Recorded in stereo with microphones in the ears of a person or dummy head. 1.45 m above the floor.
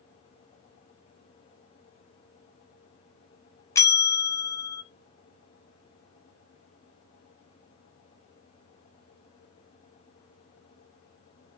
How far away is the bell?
About 0.7 m.